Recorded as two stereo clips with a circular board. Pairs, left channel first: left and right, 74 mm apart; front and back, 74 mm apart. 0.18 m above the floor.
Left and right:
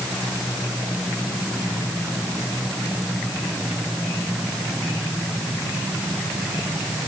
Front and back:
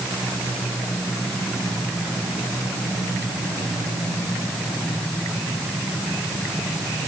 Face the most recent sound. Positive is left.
No sound to turn to.